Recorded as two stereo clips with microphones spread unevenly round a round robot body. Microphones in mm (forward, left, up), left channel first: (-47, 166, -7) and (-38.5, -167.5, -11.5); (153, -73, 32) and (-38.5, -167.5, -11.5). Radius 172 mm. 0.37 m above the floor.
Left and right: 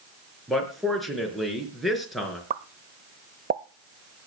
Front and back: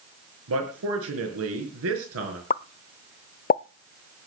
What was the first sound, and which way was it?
A man speaking, straight behind.